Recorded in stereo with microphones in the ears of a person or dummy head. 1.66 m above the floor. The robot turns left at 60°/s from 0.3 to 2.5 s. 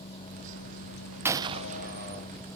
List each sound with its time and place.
0.0 s a vehicle: 150° left; by 2.6 s 15° left
1.2 s a gunshot: 15° right (ahead or behind); by 2.3 s 70° right (ahead or behind)